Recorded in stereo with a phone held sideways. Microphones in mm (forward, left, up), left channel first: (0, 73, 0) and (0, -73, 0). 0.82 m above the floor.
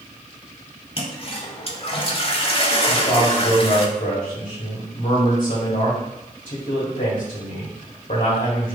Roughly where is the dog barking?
No dog barking in this recording.